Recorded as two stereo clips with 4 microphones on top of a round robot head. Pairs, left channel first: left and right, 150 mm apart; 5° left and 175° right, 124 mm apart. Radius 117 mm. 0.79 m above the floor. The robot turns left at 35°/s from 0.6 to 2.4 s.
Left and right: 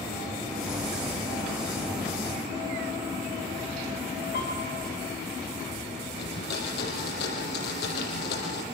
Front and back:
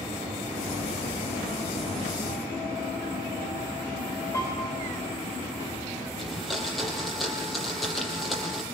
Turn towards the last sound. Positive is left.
turn(degrees=95)